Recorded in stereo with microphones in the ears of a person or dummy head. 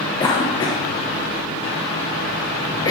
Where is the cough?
25° left (ahead or behind), 0.9 m.